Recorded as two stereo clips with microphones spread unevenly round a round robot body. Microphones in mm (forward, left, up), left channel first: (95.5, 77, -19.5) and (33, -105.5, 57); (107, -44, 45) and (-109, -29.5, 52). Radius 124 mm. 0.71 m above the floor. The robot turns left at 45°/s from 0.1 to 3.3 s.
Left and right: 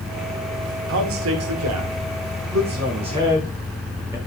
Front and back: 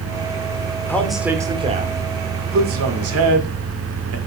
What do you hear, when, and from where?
0.9 s a man speaking: 85° right, 1.8 m; by 4.2 s 170° left, 1.8 m